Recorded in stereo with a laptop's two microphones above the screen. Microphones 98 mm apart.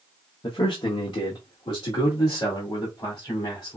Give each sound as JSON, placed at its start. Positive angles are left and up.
{"t": 0.4, "sound": "a man speaking", "side_deg": 55, "distance_m": 0.9}